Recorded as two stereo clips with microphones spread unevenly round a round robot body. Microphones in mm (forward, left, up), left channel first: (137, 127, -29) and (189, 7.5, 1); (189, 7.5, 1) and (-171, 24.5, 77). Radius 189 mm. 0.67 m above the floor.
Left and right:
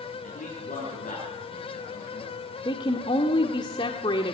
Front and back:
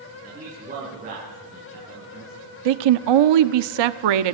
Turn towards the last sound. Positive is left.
turn(degrees=170)